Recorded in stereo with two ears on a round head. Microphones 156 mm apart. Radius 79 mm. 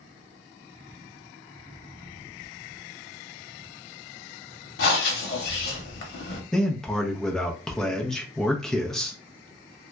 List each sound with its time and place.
4.8 s breathing: 65° left (ahead or behind), 0.8 m
6.5 s a man speaking: 5° left (ahead or behind), 0.6 m